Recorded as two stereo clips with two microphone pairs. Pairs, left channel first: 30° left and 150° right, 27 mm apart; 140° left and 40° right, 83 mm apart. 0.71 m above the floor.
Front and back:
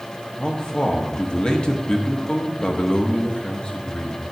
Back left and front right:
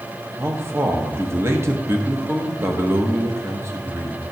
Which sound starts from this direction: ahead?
A man speaking, at 0.4 s.